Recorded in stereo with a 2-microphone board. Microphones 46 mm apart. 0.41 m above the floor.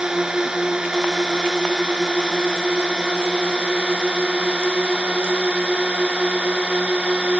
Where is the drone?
15° right (ahead or behind); by 7.4 s 25° right (ahead or behind).